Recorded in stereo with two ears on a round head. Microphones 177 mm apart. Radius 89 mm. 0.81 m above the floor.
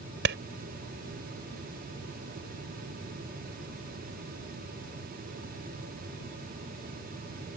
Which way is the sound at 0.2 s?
60° right (ahead or behind).